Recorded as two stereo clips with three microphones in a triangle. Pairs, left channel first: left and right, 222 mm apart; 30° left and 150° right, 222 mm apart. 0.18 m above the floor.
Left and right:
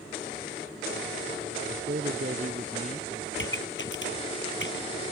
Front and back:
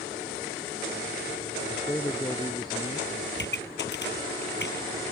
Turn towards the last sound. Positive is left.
turn(degrees=65)